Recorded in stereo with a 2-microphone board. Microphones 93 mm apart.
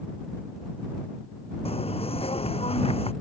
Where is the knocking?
85° left.